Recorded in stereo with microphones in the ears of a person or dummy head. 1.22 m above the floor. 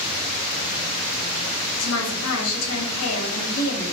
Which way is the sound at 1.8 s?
75° left (ahead or behind).